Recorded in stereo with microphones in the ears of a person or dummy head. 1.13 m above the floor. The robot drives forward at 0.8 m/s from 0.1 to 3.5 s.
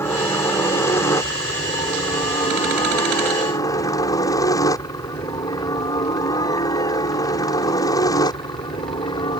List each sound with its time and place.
0.0 s a helicopter: 10° left (ahead or behind); by 9.4 s 20° left (ahead or behind)